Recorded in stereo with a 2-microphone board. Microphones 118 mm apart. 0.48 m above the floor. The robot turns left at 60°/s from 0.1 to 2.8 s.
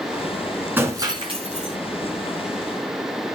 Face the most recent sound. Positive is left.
turn(degrees=-140)